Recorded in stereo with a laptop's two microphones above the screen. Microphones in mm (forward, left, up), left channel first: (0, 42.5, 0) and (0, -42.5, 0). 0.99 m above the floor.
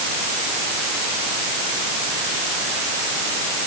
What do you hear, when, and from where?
Only background noise.